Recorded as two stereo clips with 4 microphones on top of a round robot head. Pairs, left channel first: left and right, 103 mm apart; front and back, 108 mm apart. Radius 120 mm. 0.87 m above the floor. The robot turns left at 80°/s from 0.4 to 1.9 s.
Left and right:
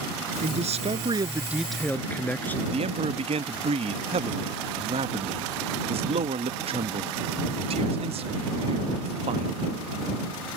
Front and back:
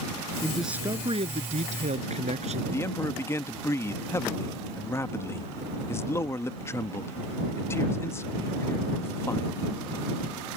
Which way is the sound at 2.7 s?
70° right.